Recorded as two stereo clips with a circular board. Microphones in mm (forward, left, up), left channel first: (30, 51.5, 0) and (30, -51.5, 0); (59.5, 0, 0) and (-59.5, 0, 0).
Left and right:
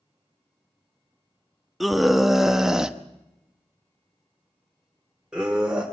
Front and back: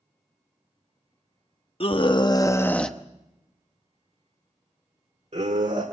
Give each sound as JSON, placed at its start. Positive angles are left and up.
{"t": 1.8, "sound": "a scream", "azimuth_deg": 0, "distance_m": 1.2}